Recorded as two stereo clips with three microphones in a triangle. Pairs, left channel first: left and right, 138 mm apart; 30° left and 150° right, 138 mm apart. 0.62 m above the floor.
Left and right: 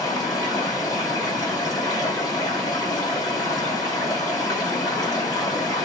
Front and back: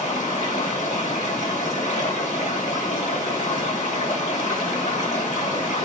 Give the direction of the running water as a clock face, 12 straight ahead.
11 o'clock.